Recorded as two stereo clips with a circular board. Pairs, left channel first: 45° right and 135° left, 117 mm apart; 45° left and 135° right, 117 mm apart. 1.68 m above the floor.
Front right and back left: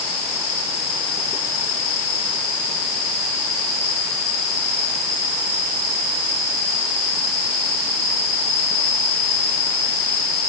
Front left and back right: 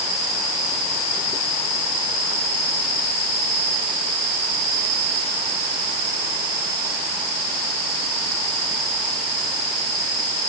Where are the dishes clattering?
No dishes clattering in this recording.